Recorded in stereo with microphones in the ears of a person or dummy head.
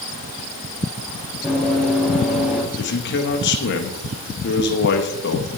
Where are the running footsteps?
Centre (ahead or behind), 5.5 m; by 2.6 s 5° right (ahead or behind), 6 m.